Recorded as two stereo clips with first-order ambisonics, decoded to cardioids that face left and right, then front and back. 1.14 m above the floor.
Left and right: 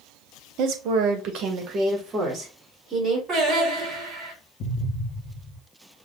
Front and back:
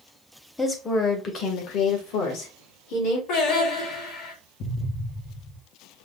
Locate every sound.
0.6 s a woman speaking: 85° right, 0.8 m; by 3.2 s 25° right, 2 m
3.3 s singing: 25° right, 3 m
4.6 s an explosion: 40° left, 0.7 m